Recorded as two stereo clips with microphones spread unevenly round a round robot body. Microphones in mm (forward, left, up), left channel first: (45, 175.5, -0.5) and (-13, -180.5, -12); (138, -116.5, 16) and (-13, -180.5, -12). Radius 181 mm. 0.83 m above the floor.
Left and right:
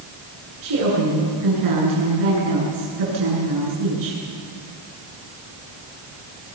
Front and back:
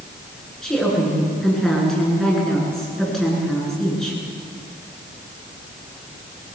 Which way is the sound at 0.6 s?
65° right.